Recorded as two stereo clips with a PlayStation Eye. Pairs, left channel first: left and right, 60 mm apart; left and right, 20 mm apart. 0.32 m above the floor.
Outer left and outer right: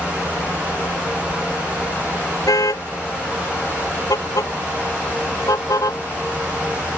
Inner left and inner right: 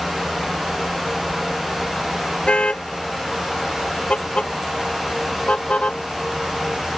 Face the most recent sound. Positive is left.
turn(degrees=75)  # may be behind; listen again after turning